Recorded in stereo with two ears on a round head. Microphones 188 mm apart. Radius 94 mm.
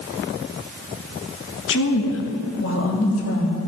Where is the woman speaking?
65° left (ahead or behind), 1.5 m; by 3.6 s 75° left (ahead or behind), 2.5 m.